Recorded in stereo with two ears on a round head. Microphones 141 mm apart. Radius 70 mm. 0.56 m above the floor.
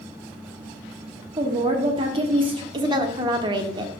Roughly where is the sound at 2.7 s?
Right.